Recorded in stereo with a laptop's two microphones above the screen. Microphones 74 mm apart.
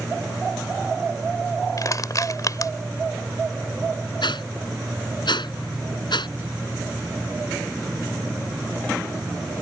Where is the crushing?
50° left (ahead or behind).